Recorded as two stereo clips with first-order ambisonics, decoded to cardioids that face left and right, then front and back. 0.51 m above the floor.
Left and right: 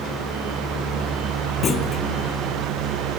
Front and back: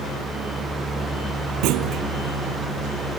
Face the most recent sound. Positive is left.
turn(degrees=155)